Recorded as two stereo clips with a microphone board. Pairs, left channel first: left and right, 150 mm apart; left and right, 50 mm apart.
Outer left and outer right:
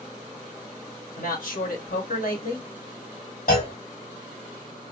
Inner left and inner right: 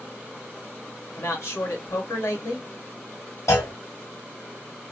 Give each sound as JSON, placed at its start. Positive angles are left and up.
{"t": 1.2, "sound": "a man speaking", "side_deg": 70, "distance_m": 1.4}
{"t": 3.5, "sound": "a clunk", "side_deg": 75, "distance_m": 1.7}